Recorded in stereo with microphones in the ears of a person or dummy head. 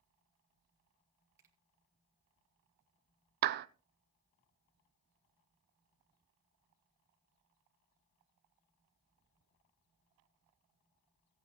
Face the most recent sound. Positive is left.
turn(degrees=-60)  # may be behind; listen again after turning